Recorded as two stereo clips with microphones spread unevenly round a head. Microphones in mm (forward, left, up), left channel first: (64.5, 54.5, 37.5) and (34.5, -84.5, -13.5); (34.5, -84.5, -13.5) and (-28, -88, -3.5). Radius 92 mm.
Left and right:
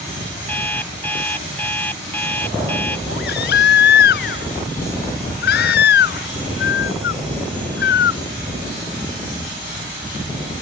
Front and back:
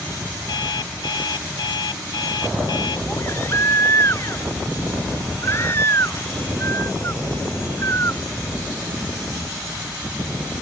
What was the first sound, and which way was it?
An alarm clock, straight ahead.